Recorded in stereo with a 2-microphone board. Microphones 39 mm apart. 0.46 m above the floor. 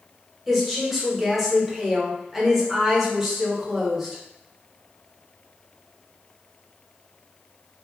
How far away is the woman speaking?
About 0.9 m.